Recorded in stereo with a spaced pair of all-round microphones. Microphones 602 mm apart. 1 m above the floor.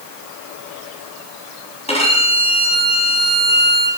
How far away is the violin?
About 4.5 m.